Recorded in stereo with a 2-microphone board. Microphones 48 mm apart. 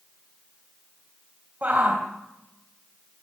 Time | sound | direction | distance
1.6 | a shout | 35° right (ahead or behind) | 3.5 m